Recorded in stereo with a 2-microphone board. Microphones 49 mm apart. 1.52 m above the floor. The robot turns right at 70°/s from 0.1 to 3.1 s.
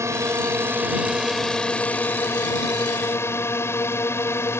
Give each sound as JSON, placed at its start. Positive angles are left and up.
{"t": 0.0, "sound": "a drone", "azimuth_deg": -90}